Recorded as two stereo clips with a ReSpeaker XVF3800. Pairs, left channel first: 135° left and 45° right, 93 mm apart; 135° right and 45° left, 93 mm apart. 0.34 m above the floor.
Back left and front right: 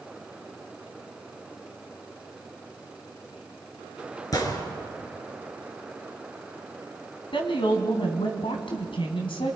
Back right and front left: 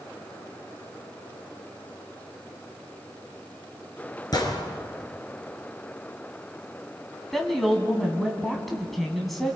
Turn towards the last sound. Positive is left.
turn(degrees=140)